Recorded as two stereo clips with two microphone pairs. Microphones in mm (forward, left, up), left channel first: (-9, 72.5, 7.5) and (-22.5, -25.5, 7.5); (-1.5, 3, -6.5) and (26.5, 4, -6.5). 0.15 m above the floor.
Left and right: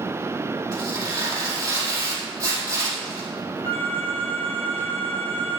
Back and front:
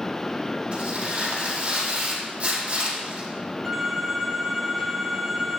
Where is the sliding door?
No sliding door in this recording.